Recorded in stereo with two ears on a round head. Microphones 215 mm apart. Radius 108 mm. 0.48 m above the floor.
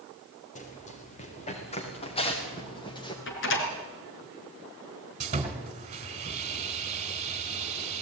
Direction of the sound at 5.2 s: 30° right (ahead or behind).